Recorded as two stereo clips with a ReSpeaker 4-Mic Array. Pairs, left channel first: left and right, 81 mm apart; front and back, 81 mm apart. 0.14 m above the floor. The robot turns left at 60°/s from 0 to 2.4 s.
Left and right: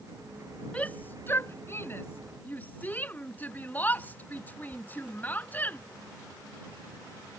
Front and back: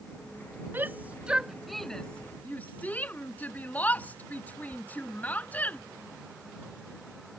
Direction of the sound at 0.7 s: 145° left.